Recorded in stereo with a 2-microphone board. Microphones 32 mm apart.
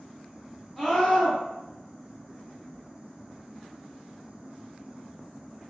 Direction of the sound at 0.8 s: 5° right (ahead or behind).